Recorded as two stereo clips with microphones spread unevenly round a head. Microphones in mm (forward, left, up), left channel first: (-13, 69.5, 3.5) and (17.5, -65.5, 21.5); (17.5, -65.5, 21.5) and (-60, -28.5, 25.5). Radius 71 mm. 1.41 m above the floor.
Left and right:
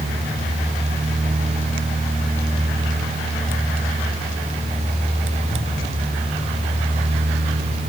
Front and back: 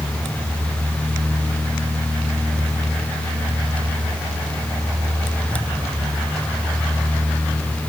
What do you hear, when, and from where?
Only background noise.